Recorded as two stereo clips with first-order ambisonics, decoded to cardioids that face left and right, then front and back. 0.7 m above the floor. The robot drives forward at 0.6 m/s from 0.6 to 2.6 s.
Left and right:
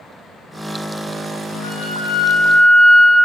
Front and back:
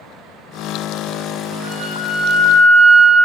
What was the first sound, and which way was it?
A flute, 150° left.